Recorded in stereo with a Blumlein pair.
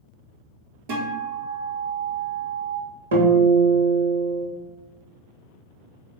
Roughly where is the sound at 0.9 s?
Ahead right.